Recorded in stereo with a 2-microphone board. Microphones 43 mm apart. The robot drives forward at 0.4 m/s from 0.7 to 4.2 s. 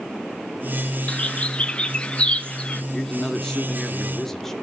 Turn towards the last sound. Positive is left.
turn(degrees=10)  # may be behind; listen again after turning